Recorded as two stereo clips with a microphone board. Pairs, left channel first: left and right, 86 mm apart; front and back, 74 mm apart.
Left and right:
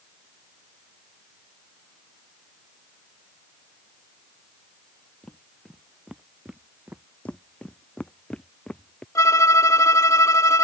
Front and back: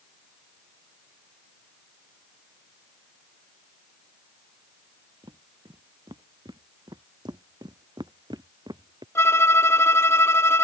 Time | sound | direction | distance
5.2 | footsteps | 170° left | ?
7.2 | footsteps | 165° left | ?
9.2 | a violin | 45° left | ?